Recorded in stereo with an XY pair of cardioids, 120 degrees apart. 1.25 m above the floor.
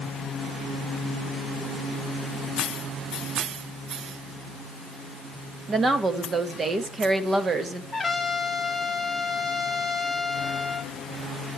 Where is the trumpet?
10° left, 1.5 m.